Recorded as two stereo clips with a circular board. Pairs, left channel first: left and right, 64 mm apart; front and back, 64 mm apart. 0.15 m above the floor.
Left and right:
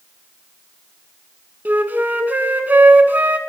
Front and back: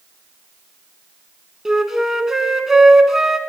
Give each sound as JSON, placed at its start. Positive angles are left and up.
{"t": 1.6, "sound": "a flute", "azimuth_deg": -100, "distance_m": 0.5}